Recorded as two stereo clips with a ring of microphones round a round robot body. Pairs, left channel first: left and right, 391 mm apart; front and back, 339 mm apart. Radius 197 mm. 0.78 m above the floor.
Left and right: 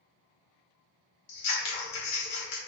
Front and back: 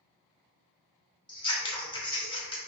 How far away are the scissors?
About 1.3 m.